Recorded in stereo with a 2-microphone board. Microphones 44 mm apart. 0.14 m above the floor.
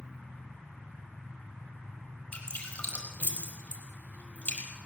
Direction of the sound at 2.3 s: 30° left (ahead or behind).